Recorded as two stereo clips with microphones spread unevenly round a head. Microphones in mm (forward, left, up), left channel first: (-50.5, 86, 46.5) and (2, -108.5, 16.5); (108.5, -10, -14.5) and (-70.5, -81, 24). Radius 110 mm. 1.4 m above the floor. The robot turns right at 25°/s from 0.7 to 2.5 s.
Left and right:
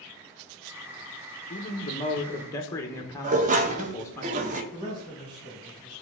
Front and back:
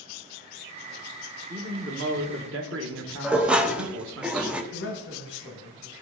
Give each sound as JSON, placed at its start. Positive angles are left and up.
{"t": 1.5, "sound": "a man speaking", "azimuth_deg": 155, "distance_m": 1.0}
{"t": 3.2, "sound": "dishes clattering", "azimuth_deg": -105, "distance_m": 0.7}
{"t": 4.7, "sound": "a man speaking", "azimuth_deg": -5, "distance_m": 1.5}